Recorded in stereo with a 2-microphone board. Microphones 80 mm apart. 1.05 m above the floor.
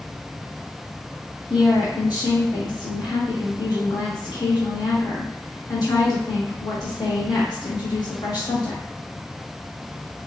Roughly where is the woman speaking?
Left.